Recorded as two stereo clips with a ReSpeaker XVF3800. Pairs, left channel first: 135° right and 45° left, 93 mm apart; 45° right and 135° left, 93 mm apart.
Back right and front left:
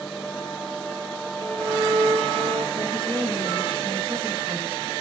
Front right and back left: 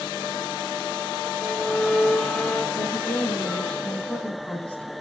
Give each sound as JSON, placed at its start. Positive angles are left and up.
{"t": 1.4, "sound": "a violin", "azimuth_deg": 30, "distance_m": 5.5}
{"t": 2.7, "sound": "a woman speaking", "azimuth_deg": 30, "distance_m": 5.0}